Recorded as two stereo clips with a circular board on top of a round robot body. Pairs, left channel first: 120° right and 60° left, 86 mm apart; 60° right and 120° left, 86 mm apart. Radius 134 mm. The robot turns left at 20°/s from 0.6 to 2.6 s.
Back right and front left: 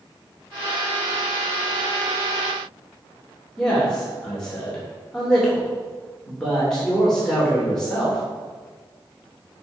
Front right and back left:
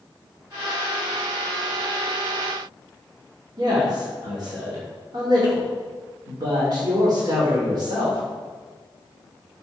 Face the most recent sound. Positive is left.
turn(degrees=160)